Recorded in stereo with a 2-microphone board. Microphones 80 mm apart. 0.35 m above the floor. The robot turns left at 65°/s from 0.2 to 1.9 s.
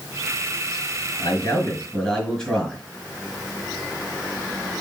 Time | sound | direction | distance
1.2 | a man speaking | 55° left | 4.5 m